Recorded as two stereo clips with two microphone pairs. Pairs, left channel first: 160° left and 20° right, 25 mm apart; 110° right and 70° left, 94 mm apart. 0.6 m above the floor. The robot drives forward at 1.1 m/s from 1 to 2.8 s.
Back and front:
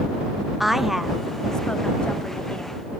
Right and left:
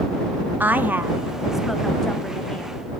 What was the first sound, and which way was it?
A woman speaking, 65° left.